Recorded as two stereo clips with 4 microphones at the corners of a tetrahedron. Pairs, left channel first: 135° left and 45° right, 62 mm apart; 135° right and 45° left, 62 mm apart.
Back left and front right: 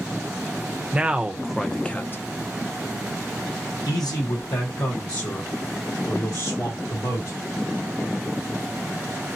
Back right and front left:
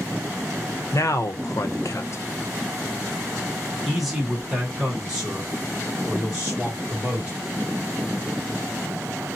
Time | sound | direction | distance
0.9 | a man speaking | 115° right | 0.8 m